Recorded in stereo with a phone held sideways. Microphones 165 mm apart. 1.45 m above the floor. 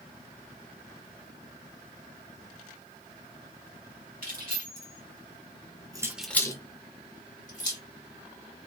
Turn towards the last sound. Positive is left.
turn(degrees=55)  # may be behind; listen again after turning